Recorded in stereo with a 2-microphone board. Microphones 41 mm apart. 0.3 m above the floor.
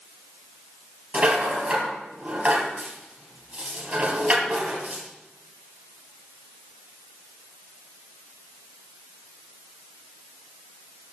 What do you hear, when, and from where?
1.1 s a rattle: 35° right (ahead or behind), 3 m